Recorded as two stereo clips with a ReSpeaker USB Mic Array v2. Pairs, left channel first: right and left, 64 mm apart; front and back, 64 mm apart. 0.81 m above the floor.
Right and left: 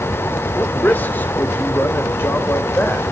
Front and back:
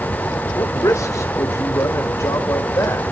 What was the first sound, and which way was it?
A man speaking, 30° right.